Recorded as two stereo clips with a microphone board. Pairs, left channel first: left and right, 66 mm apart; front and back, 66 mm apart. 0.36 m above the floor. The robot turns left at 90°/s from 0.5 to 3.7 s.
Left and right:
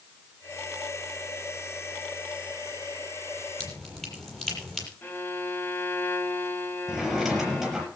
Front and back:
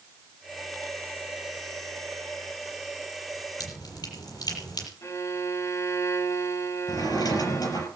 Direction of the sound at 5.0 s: 35° left.